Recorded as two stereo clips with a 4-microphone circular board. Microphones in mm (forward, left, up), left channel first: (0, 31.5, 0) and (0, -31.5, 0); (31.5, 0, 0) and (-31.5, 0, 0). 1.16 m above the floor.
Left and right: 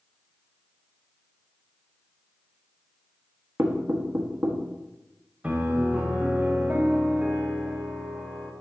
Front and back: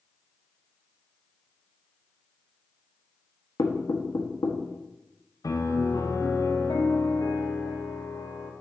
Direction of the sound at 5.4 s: 20° right.